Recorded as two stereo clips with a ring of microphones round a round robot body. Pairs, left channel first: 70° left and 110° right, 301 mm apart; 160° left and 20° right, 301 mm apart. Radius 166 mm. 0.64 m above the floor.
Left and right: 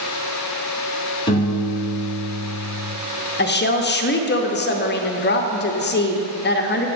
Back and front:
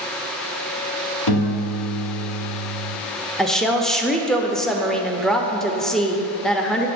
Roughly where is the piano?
Behind left.